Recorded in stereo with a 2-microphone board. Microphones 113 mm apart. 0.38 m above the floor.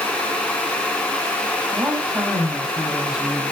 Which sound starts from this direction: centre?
A woman speaking, at 1.7 s.